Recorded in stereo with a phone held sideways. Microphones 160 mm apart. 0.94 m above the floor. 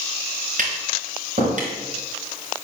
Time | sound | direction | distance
0.6 | tapping | 55° right (ahead or behind) | 3.5 m